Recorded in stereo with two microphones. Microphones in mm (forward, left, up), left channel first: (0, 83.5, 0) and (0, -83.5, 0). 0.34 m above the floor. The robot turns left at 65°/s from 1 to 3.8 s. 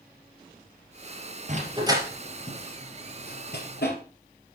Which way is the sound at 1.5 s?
50° right (ahead or behind).